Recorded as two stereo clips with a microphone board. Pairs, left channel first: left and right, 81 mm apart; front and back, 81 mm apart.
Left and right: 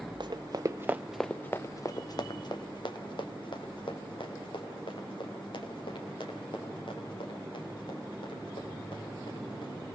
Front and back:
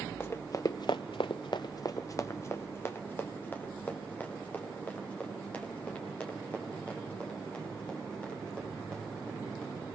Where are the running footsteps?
60° right, 1.1 m; by 9.8 s 80° left, 8.5 m.